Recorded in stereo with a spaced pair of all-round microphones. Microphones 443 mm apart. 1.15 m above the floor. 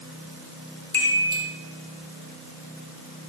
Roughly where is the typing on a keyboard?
I don't hear typing on a keyboard.